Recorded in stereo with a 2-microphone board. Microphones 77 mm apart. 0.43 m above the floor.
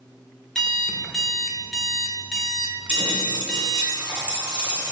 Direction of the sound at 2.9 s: 30° right (ahead or behind).